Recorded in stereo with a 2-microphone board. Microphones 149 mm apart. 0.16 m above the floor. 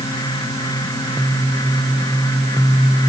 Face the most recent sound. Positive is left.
No sound to turn to.